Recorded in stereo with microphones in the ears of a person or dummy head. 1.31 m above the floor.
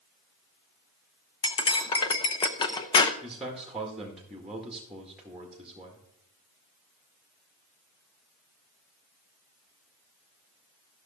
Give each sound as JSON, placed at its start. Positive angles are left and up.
{"t": 1.4, "sound": "cutlery clinking", "side_deg": 20, "distance_m": 0.8}
{"t": 3.2, "sound": "a man speaking", "side_deg": 0, "distance_m": 1.7}